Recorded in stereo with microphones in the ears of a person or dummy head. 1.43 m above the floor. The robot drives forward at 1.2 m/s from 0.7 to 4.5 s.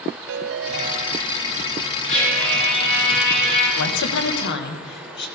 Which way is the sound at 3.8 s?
85° left.